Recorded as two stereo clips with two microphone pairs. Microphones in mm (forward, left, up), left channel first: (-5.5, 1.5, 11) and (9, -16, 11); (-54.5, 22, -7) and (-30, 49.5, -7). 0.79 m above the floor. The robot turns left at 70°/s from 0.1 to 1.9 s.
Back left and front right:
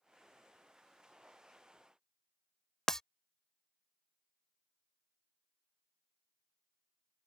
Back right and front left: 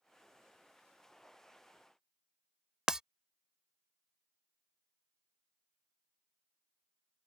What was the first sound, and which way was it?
Breaking glass, 90° left.